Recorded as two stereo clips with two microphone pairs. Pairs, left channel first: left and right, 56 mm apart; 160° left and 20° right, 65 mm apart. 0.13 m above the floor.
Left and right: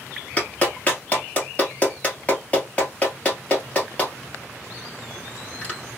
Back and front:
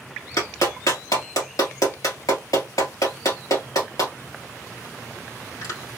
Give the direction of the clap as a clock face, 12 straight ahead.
7 o'clock.